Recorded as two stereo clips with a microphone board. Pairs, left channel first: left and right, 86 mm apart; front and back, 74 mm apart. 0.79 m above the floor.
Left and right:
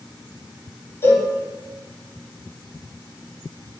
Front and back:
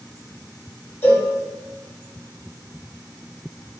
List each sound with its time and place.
1.0 s a cowbell: 45° left, 0.8 m